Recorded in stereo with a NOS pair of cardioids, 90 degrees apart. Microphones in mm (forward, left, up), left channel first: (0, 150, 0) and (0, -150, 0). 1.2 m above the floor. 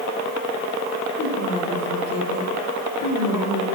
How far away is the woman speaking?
About 3.5 m.